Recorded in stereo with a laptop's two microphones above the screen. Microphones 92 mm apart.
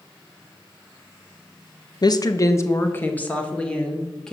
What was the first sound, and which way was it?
A woman speaking, 45° left (ahead or behind).